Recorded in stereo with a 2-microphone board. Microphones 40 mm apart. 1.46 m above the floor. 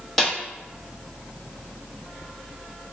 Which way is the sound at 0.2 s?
5° left (ahead or behind).